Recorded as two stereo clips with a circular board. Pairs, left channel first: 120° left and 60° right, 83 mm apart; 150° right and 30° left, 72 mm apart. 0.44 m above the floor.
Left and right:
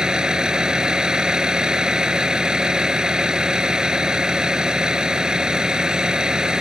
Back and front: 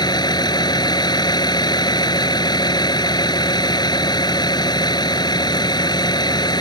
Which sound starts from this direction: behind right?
A vehicle, at 0.0 s.